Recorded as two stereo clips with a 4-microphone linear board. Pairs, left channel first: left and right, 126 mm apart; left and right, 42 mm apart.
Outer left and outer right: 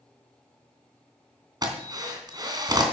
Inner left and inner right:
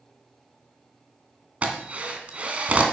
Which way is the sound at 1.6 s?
35° right (ahead or behind).